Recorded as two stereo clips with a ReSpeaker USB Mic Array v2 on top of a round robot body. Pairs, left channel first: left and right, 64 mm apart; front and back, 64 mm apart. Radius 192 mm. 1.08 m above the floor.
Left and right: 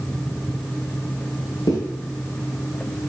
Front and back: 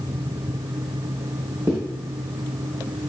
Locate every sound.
1.7 s a zipper: 125° left, 1.4 m